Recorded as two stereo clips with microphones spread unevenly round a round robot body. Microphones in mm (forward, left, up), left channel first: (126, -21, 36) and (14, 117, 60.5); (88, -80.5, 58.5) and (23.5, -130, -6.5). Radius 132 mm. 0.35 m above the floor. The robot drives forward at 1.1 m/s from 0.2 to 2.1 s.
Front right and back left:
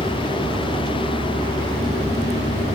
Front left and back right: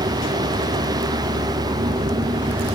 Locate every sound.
0.0 s a vehicle: 150° right; by 2.8 s 155° right